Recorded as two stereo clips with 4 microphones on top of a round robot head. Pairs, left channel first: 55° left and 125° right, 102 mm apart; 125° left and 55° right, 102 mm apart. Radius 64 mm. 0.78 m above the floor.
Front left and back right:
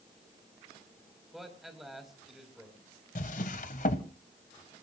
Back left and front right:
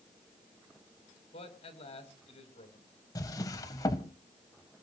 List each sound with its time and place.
1.3 s a man speaking: 150° left, 4 m
3.1 s a drawer: 65° left, 1.0 m